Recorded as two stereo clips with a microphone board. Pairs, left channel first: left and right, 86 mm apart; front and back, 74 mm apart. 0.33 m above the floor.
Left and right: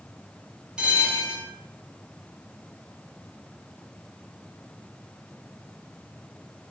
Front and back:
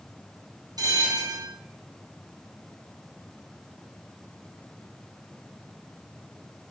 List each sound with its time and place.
0.8 s a bell: 170° right, 3 m